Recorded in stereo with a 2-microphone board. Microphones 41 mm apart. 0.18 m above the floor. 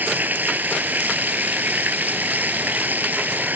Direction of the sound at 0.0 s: 45° right (ahead or behind).